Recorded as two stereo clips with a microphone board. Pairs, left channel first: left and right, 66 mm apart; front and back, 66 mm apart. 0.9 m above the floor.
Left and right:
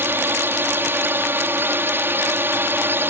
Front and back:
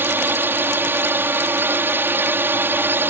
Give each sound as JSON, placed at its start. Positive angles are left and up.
{"t": 0.0, "sound": "a drone", "azimuth_deg": -135}